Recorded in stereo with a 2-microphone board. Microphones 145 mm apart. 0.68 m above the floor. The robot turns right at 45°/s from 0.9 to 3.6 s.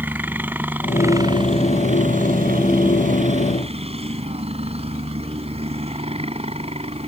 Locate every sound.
0.0 s a helicopter: 165° right; by 7.1 s 45° right